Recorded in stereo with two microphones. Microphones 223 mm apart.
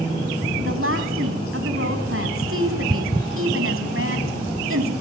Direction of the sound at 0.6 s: 65° right (ahead or behind).